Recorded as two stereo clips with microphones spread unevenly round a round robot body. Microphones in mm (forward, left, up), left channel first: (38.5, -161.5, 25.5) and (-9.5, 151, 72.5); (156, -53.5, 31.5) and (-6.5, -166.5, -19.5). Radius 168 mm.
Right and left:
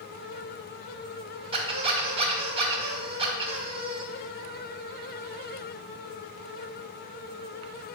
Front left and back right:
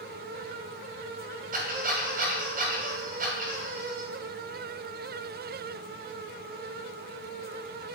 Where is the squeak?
175° left, 1.2 m.